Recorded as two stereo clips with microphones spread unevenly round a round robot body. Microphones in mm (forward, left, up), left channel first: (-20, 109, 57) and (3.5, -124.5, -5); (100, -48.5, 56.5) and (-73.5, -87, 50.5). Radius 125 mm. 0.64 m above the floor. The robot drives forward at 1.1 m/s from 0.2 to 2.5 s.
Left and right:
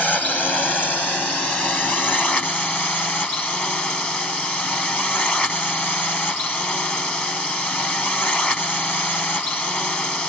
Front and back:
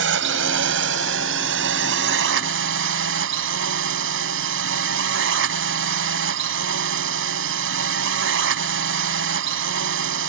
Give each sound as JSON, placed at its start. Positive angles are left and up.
{"t": 0.0, "sound": "a drone", "azimuth_deg": -175}